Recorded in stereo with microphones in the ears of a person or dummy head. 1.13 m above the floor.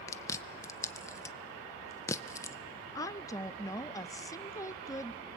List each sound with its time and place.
0.1 s chewing: 10° left (ahead or behind), 0.6 m
3.0 s a woman speaking: 15° left (ahead or behind), 0.6 m